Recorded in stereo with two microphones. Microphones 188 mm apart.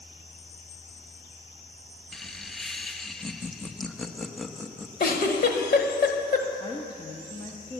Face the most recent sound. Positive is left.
turn(degrees=25)  # may be behind; listen again after turning